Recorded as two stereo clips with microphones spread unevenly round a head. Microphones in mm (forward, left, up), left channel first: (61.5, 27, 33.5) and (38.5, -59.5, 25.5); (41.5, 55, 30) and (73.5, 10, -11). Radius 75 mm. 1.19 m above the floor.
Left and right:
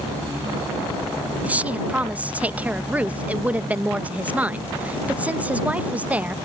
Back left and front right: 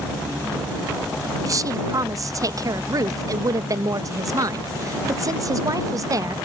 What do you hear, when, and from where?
1.4 s a woman speaking: 30° right